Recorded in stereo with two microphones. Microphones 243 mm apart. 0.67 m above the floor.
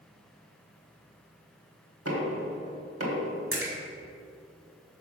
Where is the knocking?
70° right (ahead or behind), 1.3 m.